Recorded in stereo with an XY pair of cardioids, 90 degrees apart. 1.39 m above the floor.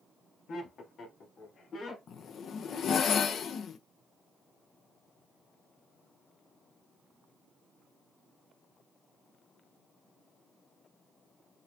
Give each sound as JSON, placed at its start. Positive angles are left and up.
{"t": 0.5, "sound": "laughter", "azimuth_deg": 70, "distance_m": 1.5}
{"t": 2.1, "sound": "a zipper", "azimuth_deg": 70, "distance_m": 0.5}